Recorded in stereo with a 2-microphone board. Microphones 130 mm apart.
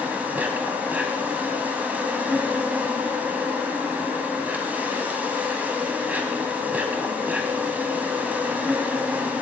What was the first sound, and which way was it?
An insect, 10° right (ahead or behind).